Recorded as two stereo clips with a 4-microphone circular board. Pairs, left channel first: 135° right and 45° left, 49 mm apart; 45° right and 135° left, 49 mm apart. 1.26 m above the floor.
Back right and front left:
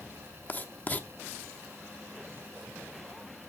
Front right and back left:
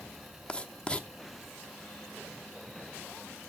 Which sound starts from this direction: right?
Writing, at 0.5 s.